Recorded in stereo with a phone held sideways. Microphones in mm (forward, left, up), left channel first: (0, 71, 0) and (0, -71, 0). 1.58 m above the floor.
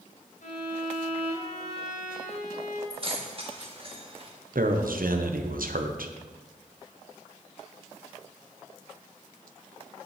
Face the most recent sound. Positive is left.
turn(degrees=-80)